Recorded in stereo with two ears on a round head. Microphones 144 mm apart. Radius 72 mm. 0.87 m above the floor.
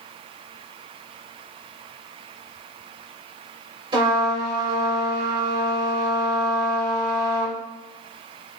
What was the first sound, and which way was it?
A trumpet, 30° right (ahead or behind).